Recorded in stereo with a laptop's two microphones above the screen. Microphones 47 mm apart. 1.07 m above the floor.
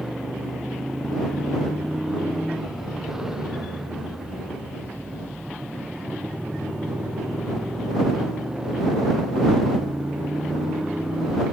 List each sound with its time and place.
0.0 s a motorcycle: 10° right (ahead or behind); by 11.5 s 20° right (ahead or behind)